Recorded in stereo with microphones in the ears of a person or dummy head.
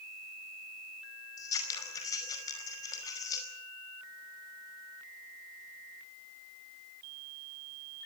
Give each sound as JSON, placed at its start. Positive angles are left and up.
{"t": 1.4, "sound": "scissors", "side_deg": 20, "distance_m": 5.0}